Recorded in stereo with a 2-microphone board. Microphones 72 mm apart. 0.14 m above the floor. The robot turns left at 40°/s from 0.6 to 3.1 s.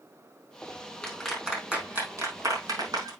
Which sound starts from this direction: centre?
A clap, at 1.0 s.